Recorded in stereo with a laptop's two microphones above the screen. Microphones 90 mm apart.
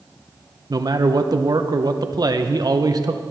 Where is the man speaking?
50° right (ahead or behind), 0.8 m.